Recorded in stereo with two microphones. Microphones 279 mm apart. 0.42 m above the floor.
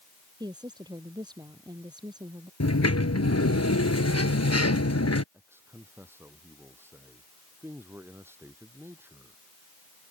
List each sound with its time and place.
0.4 s a woman speaking: 15° right (ahead or behind)
2.6 s a sliding door: 65° left (ahead or behind)
5.3 s a man speaking: 10° right (ahead or behind)